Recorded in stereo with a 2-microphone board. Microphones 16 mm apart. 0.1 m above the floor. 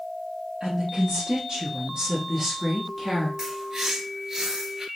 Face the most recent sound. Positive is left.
turn(degrees=-35)  # may be behind; listen again after turning